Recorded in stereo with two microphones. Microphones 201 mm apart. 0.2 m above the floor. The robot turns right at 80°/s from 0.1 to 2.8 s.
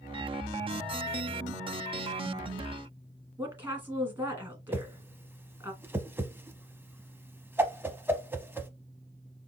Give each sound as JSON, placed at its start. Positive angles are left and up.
{"t": 3.4, "sound": "a woman speaking", "side_deg": -10, "distance_m": 1.9}
{"t": 4.7, "sound": "a whoosh", "side_deg": -10, "distance_m": 0.6}